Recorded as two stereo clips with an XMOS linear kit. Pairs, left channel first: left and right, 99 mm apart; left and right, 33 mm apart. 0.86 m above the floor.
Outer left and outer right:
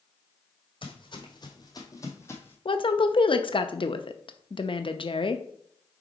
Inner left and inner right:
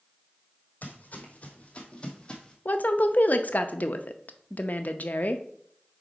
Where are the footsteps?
55° left (ahead or behind), 1.5 m; by 2.5 s 20° left (ahead or behind), 1.3 m.